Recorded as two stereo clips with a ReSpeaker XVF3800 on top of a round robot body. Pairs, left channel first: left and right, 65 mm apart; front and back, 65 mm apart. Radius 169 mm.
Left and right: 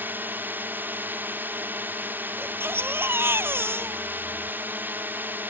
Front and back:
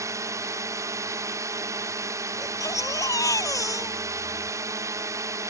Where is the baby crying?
35° right.